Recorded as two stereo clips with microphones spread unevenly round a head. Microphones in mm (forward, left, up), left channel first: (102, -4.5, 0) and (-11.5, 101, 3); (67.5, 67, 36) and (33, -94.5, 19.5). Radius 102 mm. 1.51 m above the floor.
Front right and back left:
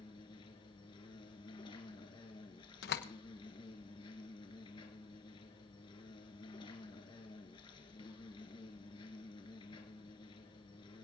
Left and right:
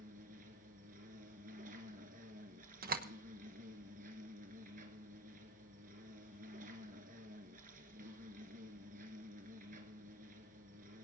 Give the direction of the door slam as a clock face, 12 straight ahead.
2 o'clock.